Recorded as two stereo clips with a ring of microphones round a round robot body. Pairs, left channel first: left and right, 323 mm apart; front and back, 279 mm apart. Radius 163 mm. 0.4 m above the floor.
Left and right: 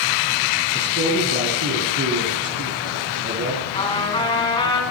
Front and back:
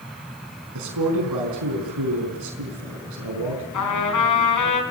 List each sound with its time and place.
0.8 s a man speaking: 150° right, 5 m
3.7 s a trumpet: 15° left, 4.5 m